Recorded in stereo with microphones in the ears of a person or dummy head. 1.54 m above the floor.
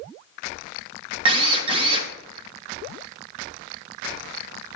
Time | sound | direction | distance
1.2 | a drill | 25° right (ahead or behind) | 1.7 m